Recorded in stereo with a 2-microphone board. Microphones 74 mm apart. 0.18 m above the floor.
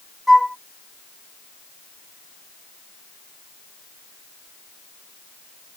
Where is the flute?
Centre (ahead or behind).